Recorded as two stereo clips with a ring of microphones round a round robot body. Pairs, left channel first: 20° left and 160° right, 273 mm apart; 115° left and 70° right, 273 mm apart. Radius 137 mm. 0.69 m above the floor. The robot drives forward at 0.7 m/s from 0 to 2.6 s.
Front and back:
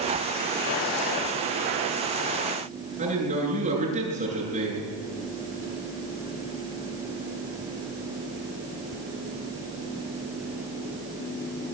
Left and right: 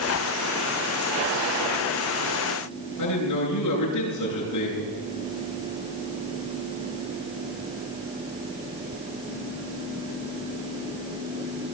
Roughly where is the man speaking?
Behind left.